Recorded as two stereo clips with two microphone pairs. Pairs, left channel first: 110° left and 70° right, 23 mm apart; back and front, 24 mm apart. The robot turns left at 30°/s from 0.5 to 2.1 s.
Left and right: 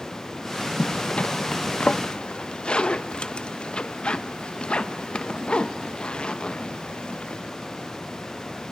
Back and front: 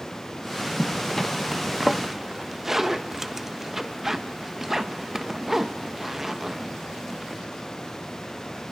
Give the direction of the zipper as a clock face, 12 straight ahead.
8 o'clock.